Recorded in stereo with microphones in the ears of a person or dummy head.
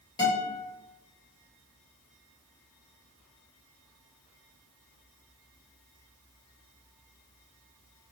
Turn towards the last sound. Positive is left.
turn(degrees=25)  # may be behind; listen again after turning